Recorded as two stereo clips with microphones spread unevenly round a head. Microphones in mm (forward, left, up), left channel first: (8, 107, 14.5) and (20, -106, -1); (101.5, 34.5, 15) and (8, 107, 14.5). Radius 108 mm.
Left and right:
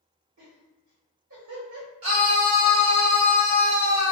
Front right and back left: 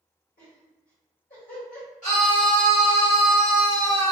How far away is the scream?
About 1.2 m.